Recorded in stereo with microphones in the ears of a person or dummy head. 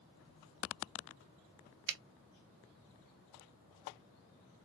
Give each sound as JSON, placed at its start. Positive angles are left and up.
{"t": 1.9, "sound": "a finger snap", "side_deg": -60, "distance_m": 0.7}